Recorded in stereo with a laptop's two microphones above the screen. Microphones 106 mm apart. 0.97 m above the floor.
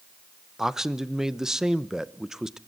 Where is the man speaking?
5° right (ahead or behind), 0.7 m.